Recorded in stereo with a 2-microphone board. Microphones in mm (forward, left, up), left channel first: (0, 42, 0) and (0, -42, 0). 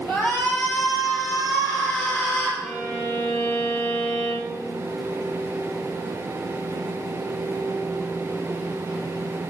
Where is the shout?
30° left (ahead or behind), 4.5 m.